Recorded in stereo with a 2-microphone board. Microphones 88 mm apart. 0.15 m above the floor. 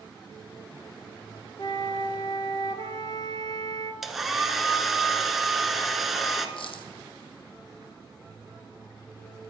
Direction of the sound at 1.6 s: 55° left (ahead or behind).